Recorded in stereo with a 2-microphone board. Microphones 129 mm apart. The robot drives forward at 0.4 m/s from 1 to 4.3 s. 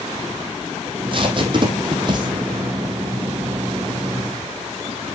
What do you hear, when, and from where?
0.9 s tape being pulled: 40° right (ahead or behind), 2 m; by 2.3 s 35° right (ahead or behind), 2.5 m